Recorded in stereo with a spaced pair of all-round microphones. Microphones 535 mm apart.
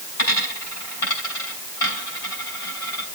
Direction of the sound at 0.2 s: 80° left.